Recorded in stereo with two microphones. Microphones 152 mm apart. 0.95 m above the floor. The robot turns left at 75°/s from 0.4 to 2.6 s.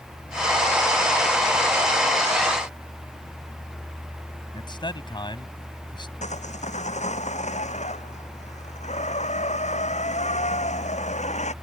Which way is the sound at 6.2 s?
55° left (ahead or behind).